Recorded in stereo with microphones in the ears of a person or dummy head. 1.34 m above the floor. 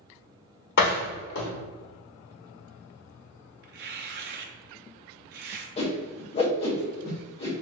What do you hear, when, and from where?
0.8 s a door slam: 55° left (ahead or behind), 1.3 m
3.6 s tearing paper: 50° right (ahead or behind), 0.6 m
5.8 s a whoosh: 30° left (ahead or behind), 0.9 m